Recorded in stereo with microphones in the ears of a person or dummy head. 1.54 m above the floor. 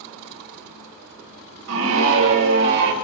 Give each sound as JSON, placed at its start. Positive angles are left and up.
{"t": 1.7, "sound": "a scream", "side_deg": -80, "distance_m": 3.0}